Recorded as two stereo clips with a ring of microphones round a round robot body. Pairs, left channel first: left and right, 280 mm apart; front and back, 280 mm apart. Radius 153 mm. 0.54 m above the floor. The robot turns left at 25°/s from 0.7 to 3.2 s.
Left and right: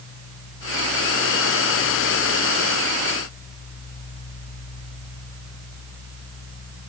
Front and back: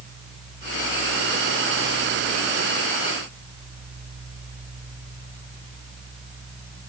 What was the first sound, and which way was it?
Only background noise.